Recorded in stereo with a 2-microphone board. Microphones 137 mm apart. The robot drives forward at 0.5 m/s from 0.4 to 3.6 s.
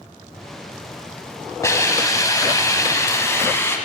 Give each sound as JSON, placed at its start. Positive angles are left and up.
{"t": 1.6, "sound": "a hiss", "side_deg": 20, "distance_m": 0.8}